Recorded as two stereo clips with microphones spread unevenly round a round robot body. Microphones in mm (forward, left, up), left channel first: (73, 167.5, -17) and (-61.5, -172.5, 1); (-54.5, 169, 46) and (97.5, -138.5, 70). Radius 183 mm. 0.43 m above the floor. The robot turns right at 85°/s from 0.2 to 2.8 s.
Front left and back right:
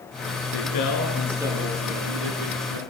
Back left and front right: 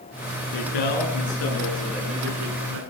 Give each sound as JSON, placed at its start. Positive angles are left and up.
{"t": 0.5, "sound": "a man speaking", "azimuth_deg": 90, "distance_m": 8.0}